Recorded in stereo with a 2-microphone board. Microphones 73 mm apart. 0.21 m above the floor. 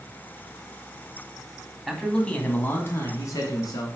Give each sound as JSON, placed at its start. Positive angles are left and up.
{"t": 1.9, "sound": "a man speaking", "side_deg": 0, "distance_m": 1.2}